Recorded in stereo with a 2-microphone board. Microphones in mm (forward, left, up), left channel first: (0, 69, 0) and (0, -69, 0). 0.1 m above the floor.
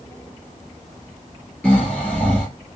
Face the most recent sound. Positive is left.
turn(degrees=5)  # may be behind; listen again after turning